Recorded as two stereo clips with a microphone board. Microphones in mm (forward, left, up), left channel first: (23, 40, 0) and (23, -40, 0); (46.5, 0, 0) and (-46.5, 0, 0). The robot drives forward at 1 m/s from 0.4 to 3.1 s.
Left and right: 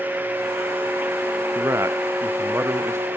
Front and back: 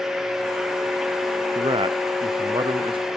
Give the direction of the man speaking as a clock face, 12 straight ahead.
5 o'clock.